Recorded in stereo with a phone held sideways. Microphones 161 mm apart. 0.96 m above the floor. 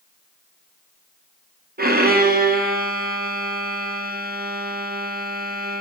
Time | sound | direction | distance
1.8 | a violin | 70° right (ahead or behind) | 0.7 m